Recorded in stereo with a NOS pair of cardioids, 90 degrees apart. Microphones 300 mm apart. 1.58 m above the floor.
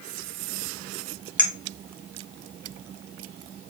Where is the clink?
5° left, 1.5 m.